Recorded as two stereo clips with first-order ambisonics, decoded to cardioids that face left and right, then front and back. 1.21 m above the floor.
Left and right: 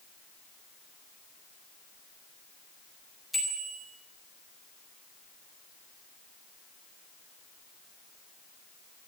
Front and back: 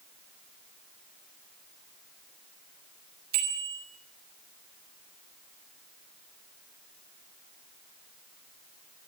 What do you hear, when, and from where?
3.3 s a bicycle bell: 175° left, 5 m